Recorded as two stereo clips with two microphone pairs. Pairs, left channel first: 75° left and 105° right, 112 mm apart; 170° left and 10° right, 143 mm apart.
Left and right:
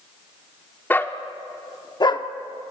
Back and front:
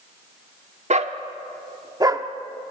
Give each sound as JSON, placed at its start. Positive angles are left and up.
{"t": 0.9, "sound": "a dog barking", "azimuth_deg": 5, "distance_m": 1.1}